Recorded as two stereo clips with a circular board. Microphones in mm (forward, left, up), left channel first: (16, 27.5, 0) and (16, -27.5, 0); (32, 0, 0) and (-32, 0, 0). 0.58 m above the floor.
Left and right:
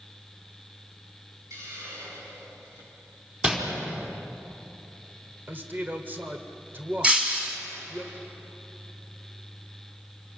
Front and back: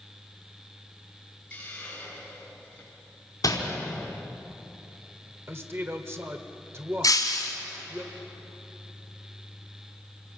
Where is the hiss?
70° right, 6.5 m.